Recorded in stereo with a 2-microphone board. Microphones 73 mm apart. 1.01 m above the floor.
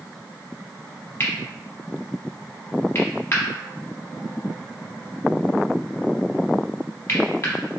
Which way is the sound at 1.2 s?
35° left (ahead or behind).